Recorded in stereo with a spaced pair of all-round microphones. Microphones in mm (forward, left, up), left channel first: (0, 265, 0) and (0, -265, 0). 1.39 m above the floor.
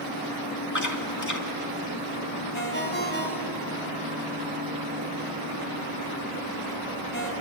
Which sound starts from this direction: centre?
A ringtone, at 2.5 s.